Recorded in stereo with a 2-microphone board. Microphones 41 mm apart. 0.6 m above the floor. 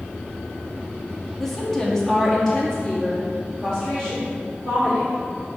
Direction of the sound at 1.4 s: 10° left (ahead or behind).